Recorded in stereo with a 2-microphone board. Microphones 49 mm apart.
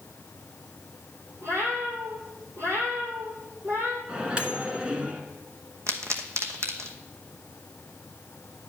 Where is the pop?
75° right (ahead or behind), 1.0 m.